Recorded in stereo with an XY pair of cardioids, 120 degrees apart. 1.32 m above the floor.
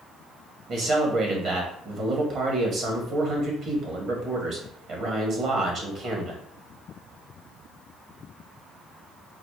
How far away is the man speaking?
About 1.3 m.